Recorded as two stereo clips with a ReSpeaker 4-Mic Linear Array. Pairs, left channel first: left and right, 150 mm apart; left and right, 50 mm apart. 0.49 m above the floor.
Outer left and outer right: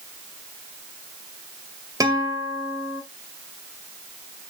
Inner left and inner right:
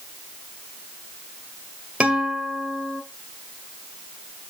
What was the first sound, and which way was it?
A guitar, 25° right (ahead or behind).